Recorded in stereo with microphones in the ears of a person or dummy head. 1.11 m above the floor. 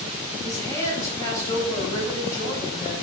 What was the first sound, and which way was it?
A woman speaking, 20° left (ahead or behind).